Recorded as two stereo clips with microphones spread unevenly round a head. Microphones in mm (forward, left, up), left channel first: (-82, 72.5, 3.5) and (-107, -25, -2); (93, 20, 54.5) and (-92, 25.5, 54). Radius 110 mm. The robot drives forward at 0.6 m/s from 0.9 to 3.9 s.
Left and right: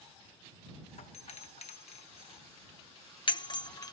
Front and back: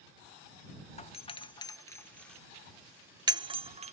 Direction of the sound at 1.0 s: 50° left.